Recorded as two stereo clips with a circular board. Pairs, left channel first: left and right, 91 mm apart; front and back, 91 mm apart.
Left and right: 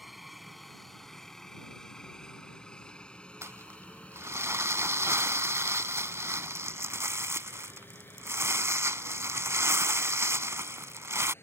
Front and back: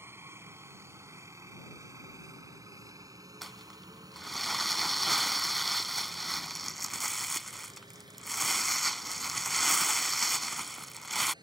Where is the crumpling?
90° right.